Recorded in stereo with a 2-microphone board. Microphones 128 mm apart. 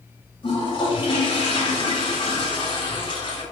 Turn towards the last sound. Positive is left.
turn(degrees=40)  # may be behind; listen again after turning